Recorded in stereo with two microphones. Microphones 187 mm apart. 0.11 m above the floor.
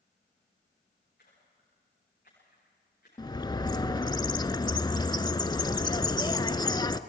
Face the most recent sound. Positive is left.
turn(degrees=25)  # may be behind; listen again after turning